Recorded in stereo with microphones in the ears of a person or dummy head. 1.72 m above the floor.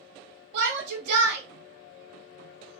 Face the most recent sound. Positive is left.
turn(degrees=-70)  # may be behind; listen again after turning